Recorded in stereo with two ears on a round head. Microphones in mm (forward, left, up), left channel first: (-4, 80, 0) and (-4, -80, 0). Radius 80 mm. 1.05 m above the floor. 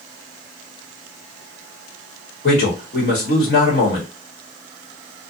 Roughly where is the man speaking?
Left.